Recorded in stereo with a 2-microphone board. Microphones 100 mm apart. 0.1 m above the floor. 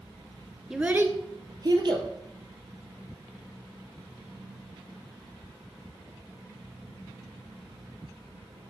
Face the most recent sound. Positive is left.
turn(degrees=-50)  # may be behind; listen again after turning